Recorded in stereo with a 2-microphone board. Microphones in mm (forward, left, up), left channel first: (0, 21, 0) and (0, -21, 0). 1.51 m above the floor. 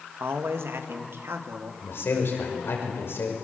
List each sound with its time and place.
0.2 s a man speaking: 75° right (ahead or behind), 1.6 m; by 1.7 s 85° right, 2.5 m
1.8 s a man speaking: 75° left (ahead or behind), 5.5 m